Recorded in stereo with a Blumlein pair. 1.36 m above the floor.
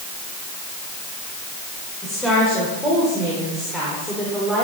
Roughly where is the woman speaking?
Ahead.